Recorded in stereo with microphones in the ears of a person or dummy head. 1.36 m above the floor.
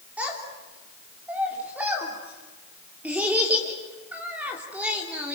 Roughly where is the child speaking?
Centre.